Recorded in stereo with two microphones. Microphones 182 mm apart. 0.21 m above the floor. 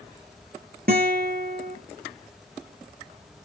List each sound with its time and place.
0.9 s a guitar: 60° right (ahead or behind), 2.5 m